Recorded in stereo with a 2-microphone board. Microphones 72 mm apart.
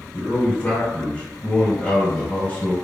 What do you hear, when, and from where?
0.1 s a man speaking: 15° left (ahead or behind), 1.9 m